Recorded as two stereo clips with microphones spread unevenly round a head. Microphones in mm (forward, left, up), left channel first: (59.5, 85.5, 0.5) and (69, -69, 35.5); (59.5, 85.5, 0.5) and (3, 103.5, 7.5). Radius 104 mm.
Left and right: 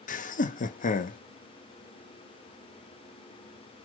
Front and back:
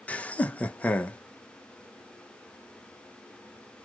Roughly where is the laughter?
Ahead left.